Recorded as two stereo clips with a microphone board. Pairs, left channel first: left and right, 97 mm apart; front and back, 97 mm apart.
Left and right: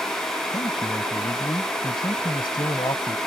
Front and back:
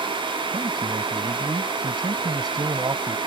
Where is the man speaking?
135° left.